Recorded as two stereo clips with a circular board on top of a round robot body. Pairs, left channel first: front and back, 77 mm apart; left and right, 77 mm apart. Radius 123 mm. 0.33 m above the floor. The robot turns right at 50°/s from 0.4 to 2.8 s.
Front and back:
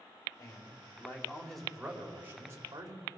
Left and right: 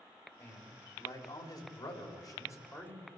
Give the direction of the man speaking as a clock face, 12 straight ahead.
11 o'clock.